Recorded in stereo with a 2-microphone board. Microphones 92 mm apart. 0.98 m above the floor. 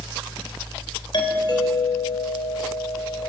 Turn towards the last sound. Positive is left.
turn(degrees=50)  # may be behind; listen again after turning